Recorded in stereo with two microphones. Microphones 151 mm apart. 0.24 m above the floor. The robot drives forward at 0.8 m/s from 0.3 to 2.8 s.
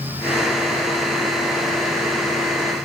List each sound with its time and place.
Only background noise.